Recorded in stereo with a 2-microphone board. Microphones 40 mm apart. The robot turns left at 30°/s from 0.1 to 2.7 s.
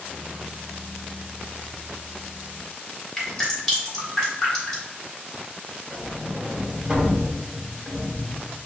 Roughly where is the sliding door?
Centre.